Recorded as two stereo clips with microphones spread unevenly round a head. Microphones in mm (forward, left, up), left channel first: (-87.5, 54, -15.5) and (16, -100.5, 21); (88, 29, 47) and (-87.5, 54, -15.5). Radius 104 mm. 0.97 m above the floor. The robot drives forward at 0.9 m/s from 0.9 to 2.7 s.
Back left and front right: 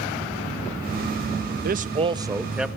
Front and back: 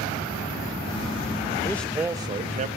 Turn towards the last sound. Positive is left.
turn(degrees=-145)